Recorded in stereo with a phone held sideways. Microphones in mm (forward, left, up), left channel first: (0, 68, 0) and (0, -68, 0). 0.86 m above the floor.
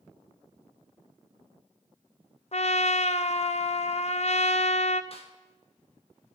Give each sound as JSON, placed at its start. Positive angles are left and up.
{"t": 2.5, "sound": "a trumpet", "side_deg": 55, "distance_m": 0.5}
{"t": 5.1, "sound": "a snare drum", "side_deg": 45, "distance_m": 1.4}